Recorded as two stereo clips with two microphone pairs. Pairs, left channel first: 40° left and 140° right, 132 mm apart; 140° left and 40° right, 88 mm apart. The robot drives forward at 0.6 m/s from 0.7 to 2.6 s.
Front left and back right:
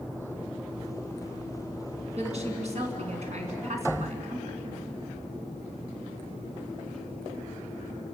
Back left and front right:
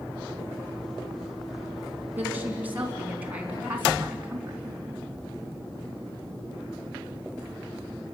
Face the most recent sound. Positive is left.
turn(degrees=-110)